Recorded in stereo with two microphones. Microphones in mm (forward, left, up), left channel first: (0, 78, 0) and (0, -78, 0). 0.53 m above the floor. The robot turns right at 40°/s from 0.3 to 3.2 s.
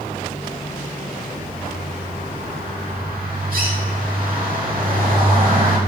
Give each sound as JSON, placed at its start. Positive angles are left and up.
{"t": 1.4, "sound": "a bird", "azimuth_deg": -150, "distance_m": 1.4}